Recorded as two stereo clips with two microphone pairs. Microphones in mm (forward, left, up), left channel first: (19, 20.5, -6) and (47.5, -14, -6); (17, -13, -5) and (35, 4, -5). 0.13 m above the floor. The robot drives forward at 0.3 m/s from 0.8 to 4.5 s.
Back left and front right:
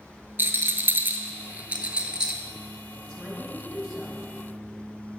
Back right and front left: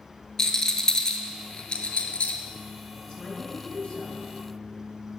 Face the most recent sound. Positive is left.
turn(degrees=-160)